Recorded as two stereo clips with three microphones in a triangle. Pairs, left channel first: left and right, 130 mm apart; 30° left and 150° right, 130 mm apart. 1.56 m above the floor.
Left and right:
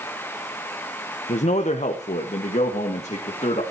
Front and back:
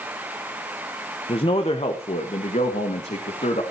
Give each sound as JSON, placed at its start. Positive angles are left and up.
{"t": 1.3, "sound": "a man speaking", "azimuth_deg": 75, "distance_m": 1.1}